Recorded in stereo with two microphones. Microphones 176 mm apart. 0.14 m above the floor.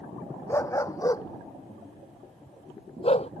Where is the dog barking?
15° left (ahead or behind); by 3.3 s 40° left (ahead or behind).